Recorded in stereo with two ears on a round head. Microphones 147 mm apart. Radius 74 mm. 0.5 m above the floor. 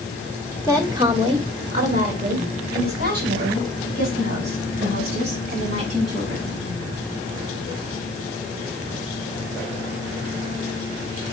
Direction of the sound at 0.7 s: 15° right (ahead or behind).